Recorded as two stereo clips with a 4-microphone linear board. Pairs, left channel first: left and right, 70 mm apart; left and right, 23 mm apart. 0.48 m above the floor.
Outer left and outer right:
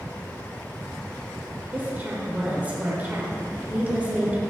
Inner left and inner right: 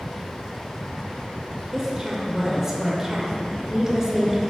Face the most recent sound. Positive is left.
turn(degrees=-20)  # may be behind; listen again after turning